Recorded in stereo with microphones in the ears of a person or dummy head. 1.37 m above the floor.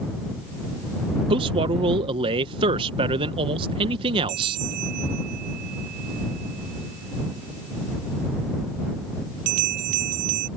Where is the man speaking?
30° right (ahead or behind).